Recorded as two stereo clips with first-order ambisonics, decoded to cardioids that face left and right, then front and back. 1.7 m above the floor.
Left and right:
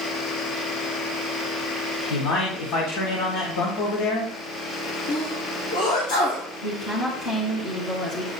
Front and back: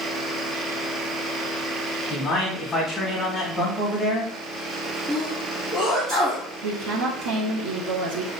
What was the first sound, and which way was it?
A man speaking, 80° left.